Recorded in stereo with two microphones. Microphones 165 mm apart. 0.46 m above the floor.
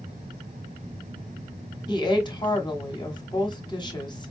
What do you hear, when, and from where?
1.9 s a woman speaking: 30° left (ahead or behind), 1.0 m